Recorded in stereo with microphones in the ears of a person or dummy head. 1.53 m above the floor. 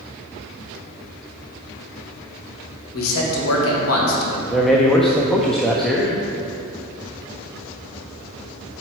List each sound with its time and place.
2.9 s a man speaking: 80° left, 1.8 m
4.5 s a man speaking: 5° left (ahead or behind), 0.6 m